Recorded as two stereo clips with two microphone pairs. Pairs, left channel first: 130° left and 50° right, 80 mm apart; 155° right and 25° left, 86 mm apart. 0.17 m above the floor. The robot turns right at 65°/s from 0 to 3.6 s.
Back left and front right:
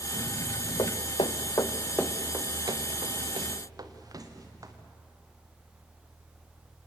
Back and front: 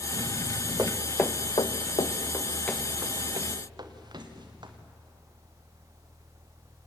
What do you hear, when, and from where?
0.8 s footsteps: 90° left, 1.0 m; by 4.7 s 5° right, 3.5 m